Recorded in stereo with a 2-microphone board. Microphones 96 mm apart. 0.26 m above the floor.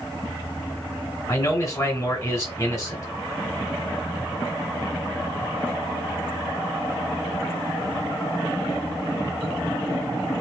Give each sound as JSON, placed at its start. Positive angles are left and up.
{"t": 1.3, "sound": "a man speaking", "side_deg": 35, "distance_m": 2.0}